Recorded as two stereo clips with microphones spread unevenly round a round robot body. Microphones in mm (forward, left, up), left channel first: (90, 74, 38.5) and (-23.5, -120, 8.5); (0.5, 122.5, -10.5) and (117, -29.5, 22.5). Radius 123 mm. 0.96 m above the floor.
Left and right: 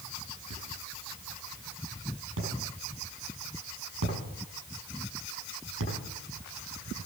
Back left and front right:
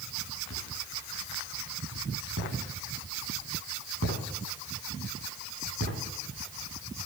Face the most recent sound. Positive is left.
turn(degrees=-90)